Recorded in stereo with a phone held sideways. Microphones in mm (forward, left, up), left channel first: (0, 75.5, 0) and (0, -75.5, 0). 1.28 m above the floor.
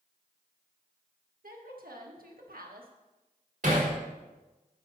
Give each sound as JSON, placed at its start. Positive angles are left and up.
{"t": 1.4, "sound": "a woman speaking", "side_deg": -85, "distance_m": 1.4}
{"t": 3.6, "sound": "hammering", "side_deg": -60, "distance_m": 3.5}